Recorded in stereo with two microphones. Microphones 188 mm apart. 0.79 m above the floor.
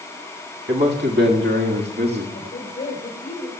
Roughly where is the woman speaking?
Left.